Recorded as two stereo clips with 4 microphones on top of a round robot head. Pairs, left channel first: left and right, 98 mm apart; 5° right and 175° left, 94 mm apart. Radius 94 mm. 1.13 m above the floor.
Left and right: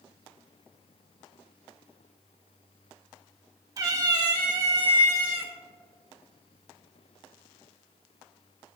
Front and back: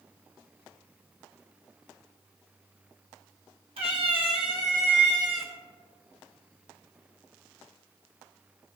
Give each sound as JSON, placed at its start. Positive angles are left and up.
{"t": 3.8, "sound": "a cat meowing", "azimuth_deg": -140, "distance_m": 2.0}